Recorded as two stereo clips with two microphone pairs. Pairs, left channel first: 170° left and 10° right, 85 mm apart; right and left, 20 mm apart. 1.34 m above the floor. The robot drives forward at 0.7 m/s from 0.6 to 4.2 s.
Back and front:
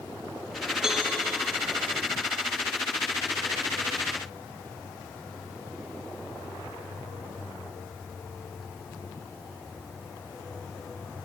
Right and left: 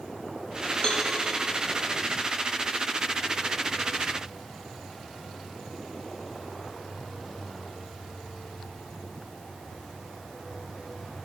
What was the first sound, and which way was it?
A cowbell, 90° right.